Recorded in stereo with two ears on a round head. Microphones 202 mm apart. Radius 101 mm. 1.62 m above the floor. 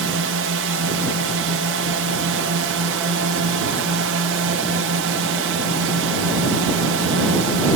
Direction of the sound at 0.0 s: 65° right (ahead or behind).